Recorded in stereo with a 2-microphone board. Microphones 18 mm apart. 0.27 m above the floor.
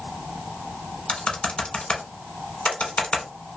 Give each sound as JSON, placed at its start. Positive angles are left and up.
{"t": 1.1, "sound": "typing on a keyboard", "side_deg": 75, "distance_m": 0.8}